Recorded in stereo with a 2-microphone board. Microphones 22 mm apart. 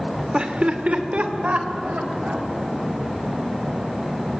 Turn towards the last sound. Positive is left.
turn(degrees=-75)  # may be behind; listen again after turning